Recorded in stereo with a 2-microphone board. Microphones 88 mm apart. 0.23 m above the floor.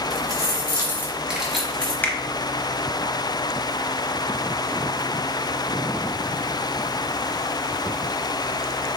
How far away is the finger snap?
About 0.7 m.